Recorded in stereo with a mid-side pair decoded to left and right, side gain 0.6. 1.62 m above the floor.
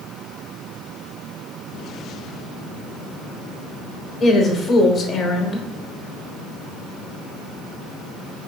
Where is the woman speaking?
40° left, 1.1 m.